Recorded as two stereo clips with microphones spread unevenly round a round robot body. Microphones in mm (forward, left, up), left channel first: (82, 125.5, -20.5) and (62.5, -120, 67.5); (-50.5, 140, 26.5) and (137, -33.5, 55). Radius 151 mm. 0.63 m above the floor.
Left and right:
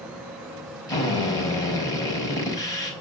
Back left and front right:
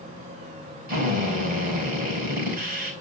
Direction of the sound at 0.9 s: 15° left.